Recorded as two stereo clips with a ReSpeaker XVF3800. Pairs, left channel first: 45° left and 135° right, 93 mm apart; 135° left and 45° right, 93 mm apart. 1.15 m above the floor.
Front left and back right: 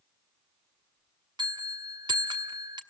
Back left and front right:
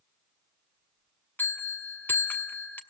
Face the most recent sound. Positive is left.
turn(degrees=-160)